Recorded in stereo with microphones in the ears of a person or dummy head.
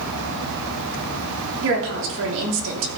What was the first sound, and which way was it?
A woman speaking, 70° right (ahead or behind).